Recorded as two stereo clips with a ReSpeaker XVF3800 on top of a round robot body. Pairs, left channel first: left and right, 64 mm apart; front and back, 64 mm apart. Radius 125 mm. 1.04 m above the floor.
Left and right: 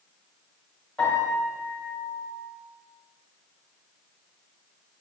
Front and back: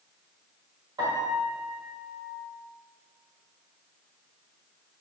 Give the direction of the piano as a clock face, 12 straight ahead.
6 o'clock.